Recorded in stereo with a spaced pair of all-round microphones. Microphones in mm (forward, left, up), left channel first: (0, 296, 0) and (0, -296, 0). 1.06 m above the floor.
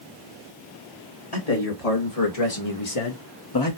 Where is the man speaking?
80° left, 2 m; by 3.8 s 25° left (ahead or behind), 0.8 m.